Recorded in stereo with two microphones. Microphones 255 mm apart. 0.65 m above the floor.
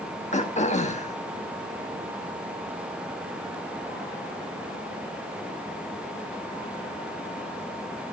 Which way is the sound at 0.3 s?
25° left (ahead or behind).